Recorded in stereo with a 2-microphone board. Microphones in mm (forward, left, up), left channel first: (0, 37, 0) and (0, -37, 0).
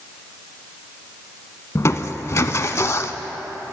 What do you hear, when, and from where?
1.8 s crushing: 40° left (ahead or behind), 0.5 m